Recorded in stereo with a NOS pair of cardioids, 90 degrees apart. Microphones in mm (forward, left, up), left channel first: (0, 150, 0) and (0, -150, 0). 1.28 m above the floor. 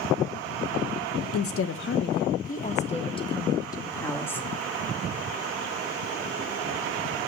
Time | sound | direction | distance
1.3 | a woman speaking | 55° left | 1.3 m